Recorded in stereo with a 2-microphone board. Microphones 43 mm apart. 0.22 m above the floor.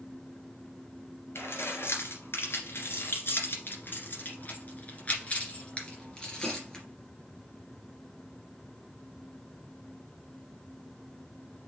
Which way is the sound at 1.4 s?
75° left (ahead or behind).